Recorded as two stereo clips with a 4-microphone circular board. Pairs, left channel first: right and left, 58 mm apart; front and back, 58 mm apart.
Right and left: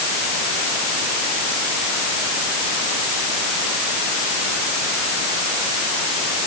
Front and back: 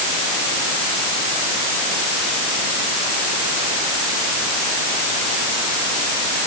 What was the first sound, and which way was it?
Only background noise.